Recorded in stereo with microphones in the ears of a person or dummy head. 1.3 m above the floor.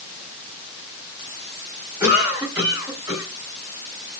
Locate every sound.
2.0 s a cough: 20° right (ahead or behind), 3.5 m